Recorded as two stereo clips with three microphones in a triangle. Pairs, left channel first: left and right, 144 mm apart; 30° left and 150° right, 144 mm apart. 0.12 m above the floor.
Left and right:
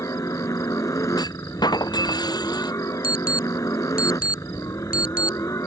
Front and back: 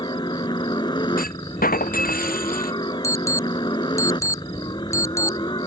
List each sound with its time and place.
0.0 s a helicopter: 45° left
1.2 s a clunk: 30° left
3.0 s an alarm: 100° left